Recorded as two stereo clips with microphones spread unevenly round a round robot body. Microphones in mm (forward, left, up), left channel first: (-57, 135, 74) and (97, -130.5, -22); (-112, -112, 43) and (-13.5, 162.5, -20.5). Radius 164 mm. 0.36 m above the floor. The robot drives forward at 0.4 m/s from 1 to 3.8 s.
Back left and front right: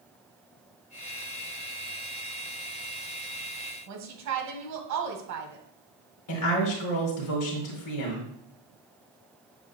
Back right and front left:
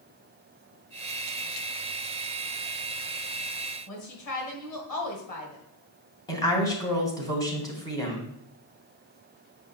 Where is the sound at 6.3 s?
165° left, 2 m.